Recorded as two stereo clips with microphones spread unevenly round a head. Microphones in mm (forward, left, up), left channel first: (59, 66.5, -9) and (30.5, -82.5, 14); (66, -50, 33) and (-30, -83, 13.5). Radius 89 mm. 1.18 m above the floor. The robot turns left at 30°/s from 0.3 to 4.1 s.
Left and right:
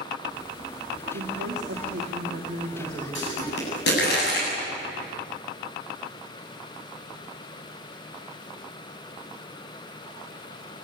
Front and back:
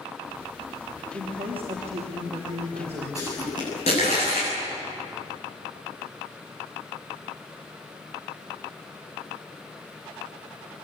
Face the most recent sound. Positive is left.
turn(degrees=65)